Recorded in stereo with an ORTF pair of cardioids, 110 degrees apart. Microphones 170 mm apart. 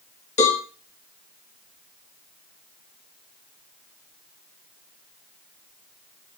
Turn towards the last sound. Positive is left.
turn(degrees=45)